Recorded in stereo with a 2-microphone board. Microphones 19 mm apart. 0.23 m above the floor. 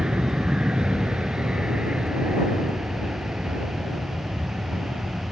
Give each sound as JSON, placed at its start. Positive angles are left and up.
{"t": 0.0, "sound": "an aircraft", "side_deg": -50}